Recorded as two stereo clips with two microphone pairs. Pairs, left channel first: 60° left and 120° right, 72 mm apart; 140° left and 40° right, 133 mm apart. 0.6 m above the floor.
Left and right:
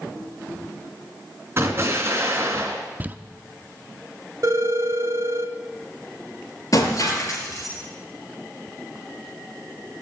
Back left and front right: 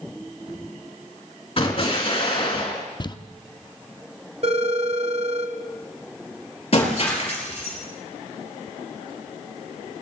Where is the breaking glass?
100° left, 4 m.